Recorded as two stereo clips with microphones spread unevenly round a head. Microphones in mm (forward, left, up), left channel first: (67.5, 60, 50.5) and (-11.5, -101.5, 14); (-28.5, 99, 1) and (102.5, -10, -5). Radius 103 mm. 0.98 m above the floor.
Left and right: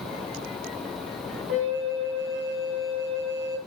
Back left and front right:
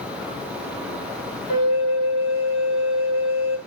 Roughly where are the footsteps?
No footsteps in this recording.